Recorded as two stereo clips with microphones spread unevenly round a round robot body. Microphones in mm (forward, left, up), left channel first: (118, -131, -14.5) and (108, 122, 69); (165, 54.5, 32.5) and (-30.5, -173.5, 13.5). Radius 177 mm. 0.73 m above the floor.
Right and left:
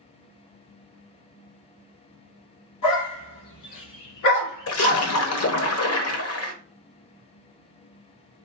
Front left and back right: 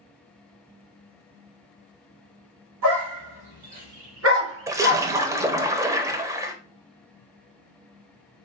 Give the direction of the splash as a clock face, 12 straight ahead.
2 o'clock.